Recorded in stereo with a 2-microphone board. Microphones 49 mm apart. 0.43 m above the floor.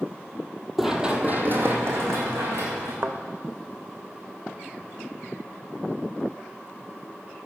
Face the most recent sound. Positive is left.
turn(degrees=-55)  # may be behind; listen again after turning